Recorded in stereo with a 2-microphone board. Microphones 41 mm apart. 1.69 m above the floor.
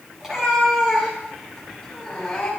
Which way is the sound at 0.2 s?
10° right (ahead or behind).